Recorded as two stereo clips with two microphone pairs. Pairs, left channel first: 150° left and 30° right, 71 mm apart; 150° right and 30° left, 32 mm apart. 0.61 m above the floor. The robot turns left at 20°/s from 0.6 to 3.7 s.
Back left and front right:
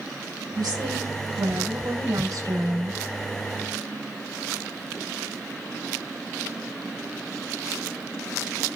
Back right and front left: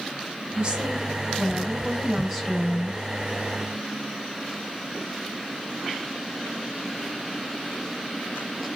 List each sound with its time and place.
0.6 s a woman speaking: 25° right, 4 m; by 3.0 s 75° right, 4 m